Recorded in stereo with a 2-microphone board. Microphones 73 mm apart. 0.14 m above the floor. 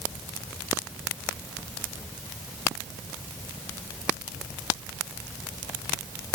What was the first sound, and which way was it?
Only background noise.